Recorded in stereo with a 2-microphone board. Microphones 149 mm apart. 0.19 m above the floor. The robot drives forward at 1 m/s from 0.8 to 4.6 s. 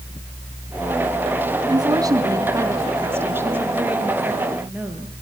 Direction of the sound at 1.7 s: 25° right (ahead or behind).